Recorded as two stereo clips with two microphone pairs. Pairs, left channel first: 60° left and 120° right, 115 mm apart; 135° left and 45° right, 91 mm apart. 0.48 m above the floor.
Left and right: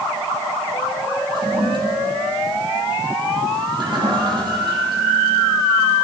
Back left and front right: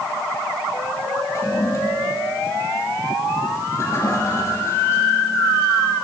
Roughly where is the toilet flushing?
Behind.